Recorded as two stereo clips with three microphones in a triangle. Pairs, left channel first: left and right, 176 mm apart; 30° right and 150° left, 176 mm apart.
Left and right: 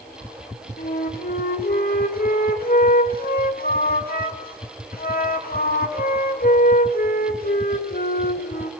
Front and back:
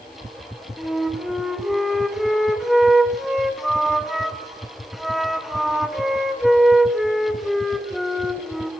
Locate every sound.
0.8 s a flute: 60° left, 2 m